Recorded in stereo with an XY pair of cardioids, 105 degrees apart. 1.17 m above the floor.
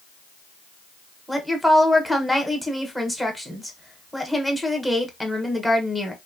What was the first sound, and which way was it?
A woman speaking, 5° left.